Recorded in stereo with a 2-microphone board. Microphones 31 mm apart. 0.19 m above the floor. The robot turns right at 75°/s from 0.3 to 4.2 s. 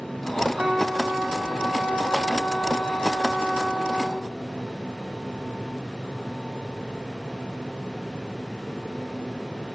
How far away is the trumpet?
About 1.6 m.